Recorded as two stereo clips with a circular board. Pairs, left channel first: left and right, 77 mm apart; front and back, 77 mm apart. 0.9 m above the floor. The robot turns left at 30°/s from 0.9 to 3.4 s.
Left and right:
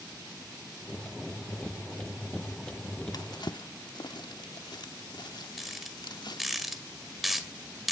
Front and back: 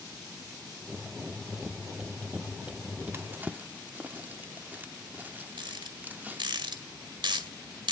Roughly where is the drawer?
Behind left.